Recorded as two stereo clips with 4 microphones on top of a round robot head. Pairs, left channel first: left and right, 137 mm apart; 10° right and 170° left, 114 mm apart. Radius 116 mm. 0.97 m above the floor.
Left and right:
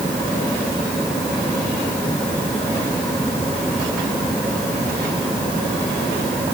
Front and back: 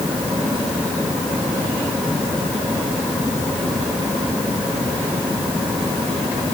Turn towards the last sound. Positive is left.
No sound to turn to.